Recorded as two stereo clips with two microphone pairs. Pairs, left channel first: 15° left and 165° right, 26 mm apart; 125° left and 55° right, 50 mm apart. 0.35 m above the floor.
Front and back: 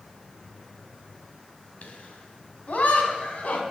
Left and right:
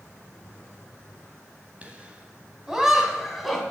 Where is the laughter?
Straight ahead, 2.5 m; by 3.6 s 35° left, 3 m.